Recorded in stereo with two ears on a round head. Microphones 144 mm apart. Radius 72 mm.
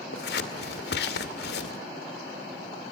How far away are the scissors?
About 2 m.